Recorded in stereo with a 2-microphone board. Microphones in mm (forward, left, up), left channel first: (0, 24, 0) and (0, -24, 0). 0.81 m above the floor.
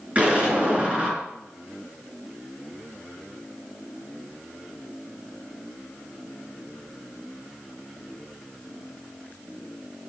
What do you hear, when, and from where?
0.1 s an explosion: 30° right (ahead or behind), 4.5 m